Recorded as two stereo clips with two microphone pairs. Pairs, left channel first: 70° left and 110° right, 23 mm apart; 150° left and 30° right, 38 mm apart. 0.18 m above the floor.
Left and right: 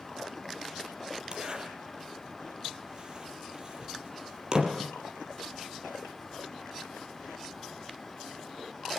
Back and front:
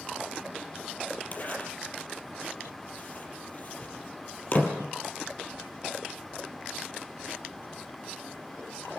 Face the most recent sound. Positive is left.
turn(degrees=-165)